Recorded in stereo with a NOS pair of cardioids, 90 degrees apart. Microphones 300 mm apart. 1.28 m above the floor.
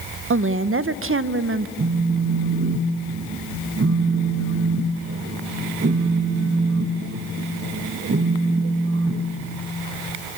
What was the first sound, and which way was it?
A woman speaking, 45° right.